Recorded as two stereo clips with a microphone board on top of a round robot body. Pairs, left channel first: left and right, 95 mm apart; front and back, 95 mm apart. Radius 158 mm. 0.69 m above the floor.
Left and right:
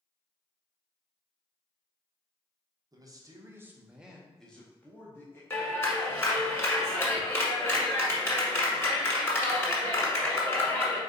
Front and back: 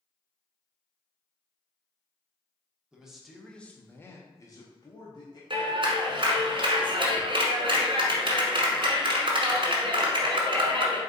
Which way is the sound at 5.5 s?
155° left.